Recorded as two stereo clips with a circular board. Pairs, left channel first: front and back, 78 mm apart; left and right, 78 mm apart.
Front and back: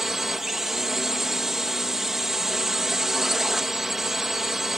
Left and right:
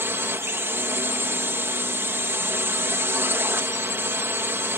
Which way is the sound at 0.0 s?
100° right.